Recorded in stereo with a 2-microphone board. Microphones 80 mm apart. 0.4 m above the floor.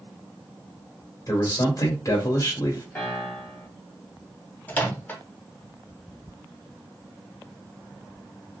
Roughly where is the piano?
Left.